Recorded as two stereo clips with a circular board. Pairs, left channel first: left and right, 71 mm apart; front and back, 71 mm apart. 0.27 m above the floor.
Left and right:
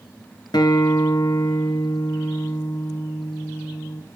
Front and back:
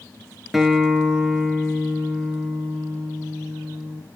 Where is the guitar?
95° left, 0.6 m.